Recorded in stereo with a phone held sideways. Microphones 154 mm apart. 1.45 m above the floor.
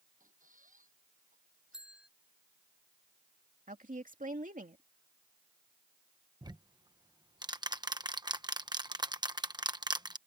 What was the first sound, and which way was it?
A squeak, 60° right (ahead or behind).